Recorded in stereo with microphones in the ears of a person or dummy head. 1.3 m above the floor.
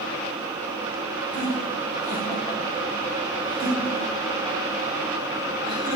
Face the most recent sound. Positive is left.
turn(degrees=-25)  # may be behind; listen again after turning